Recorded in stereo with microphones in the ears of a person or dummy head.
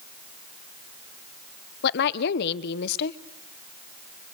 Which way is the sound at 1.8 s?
60° left (ahead or behind).